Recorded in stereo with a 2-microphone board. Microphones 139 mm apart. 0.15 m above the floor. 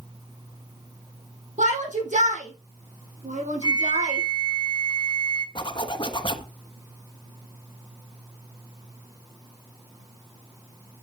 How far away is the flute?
About 1.1 m.